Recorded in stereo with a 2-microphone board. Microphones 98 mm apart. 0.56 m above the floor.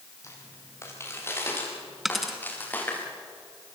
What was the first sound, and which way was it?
Footsteps, 30° left (ahead or behind).